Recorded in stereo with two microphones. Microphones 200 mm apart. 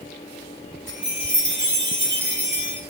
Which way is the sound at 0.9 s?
65° right (ahead or behind).